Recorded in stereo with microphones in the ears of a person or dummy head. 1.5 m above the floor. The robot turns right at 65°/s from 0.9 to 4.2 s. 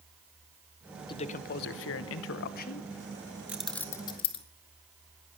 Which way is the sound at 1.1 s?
30° left.